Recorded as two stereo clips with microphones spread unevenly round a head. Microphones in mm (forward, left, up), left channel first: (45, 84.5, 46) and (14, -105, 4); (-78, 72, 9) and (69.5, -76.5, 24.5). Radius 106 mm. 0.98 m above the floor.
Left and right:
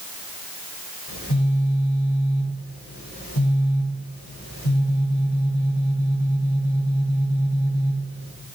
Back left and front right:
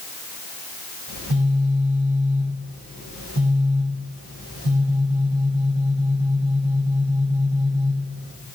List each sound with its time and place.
1.1 s a phone buzzing: 95° left, 5 m